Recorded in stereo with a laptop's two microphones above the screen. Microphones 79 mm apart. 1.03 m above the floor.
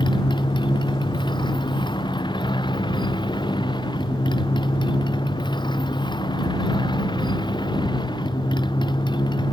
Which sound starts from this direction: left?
A motorcycle, at 0.0 s.